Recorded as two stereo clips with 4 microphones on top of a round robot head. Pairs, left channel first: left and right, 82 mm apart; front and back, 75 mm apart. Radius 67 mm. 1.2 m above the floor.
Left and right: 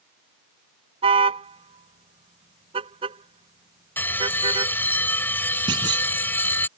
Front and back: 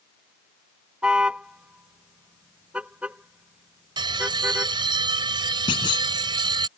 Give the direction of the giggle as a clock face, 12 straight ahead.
I don't hear a giggle.